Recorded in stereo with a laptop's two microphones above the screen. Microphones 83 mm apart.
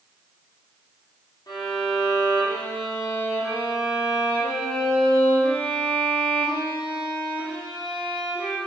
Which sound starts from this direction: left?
A violin, at 1.5 s.